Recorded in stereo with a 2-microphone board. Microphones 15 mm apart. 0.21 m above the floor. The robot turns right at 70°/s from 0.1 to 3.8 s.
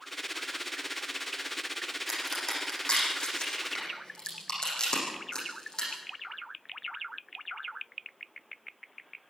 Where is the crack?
5° left (ahead or behind), 9 m; by 5.9 s 50° left (ahead or behind), 9 m.